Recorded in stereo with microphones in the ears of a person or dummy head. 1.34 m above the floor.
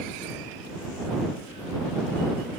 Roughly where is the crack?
I don't hear a crack.